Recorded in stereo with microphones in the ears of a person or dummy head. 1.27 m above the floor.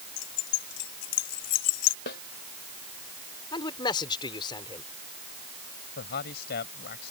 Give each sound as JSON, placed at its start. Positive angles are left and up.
{"t": 0.2, "sound": "keys jangling", "side_deg": 65}
{"t": 2.1, "sound": "a snare drum", "side_deg": 65}
{"t": 3.5, "sound": "a man speaking", "side_deg": 25}
{"t": 6.0, "sound": "a man speaking", "side_deg": 60}